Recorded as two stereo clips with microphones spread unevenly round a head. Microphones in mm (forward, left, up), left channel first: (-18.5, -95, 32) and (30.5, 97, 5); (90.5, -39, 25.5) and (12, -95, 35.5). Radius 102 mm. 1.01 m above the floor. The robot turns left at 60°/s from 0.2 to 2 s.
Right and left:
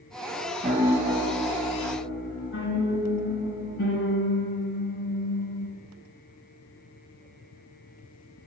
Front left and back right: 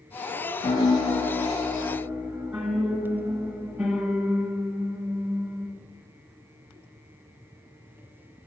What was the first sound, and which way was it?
A piano, 10° left.